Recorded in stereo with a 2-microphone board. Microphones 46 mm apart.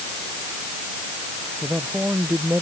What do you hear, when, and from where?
1.6 s a man speaking: 40° right (ahead or behind)